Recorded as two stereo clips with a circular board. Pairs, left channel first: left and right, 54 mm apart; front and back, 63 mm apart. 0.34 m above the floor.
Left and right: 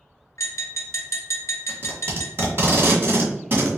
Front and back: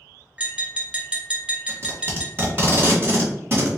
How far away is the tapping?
About 1.7 m.